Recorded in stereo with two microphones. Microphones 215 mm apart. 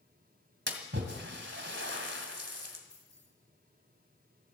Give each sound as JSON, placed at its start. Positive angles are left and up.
{"t": 0.7, "sound": "a splash", "side_deg": -60, "distance_m": 1.9}
{"t": 2.9, "sound": "keys jangling", "side_deg": 55, "distance_m": 5.5}